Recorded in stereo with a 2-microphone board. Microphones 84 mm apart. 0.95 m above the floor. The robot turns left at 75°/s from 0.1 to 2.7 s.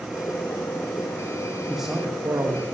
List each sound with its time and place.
1.7 s a man speaking: straight ahead, 1.2 m; by 2.6 s 70° right, 1.2 m